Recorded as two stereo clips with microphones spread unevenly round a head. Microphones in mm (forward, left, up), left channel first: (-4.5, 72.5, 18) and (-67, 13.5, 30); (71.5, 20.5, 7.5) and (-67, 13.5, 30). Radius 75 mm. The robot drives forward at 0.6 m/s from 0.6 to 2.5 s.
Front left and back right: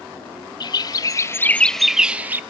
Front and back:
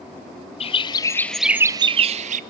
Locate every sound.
0.6 s a bird: 30° left, 0.7 m; by 2.4 s 150° left, 0.7 m